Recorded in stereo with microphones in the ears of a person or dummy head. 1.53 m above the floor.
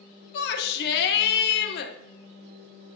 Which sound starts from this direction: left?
A shout, at 0.3 s.